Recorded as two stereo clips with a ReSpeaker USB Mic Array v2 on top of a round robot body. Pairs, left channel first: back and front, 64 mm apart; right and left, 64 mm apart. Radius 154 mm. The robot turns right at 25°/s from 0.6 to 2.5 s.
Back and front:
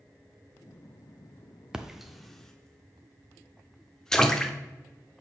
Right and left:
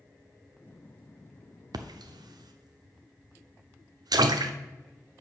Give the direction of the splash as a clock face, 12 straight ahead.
9 o'clock.